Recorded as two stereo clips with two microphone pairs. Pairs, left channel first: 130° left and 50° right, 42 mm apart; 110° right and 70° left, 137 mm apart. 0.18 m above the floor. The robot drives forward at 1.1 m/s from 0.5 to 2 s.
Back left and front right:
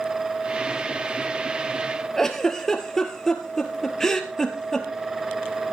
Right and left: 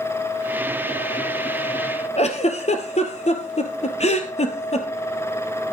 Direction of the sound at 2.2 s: 150° right.